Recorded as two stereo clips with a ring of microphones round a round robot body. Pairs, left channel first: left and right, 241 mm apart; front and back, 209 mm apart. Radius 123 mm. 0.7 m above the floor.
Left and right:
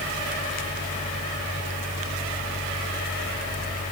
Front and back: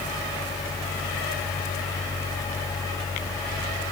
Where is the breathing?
I don't hear breathing.